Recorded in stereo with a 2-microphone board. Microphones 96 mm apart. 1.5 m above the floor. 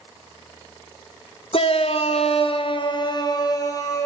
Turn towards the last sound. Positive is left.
turn(degrees=35)  # may be behind; listen again after turning